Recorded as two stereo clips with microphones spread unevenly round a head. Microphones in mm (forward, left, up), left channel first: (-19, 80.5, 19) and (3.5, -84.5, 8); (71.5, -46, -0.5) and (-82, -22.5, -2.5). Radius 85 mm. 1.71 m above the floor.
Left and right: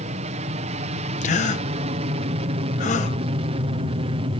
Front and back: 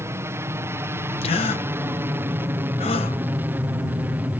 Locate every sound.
0.0 s an aircraft: 120° right; by 4.4 s 115° right
1.2 s a gasp: 50° left